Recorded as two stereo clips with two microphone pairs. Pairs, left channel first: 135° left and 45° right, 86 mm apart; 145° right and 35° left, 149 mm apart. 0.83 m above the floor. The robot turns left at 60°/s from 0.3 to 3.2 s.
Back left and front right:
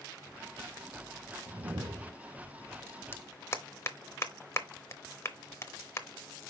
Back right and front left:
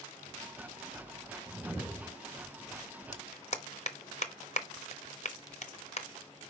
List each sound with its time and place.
1.5 s a whoosh: 35° right, 0.7 m; by 2.1 s 75° right, 0.7 m
3.1 s a clap: 170° right, 0.8 m; by 6.1 s 175° right, 0.8 m